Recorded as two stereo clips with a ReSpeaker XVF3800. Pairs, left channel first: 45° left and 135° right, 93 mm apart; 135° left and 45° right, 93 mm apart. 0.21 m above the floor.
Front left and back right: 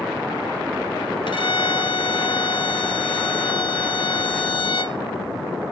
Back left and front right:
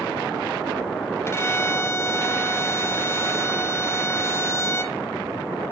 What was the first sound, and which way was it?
A violin, 75° left.